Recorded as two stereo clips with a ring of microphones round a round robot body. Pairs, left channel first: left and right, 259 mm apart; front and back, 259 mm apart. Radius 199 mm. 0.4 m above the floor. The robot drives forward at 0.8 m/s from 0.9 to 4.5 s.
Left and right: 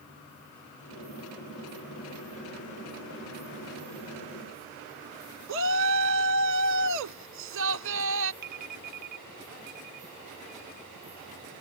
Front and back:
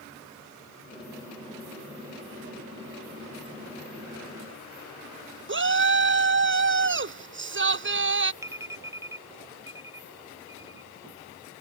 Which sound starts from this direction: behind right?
A shout, at 5.5 s.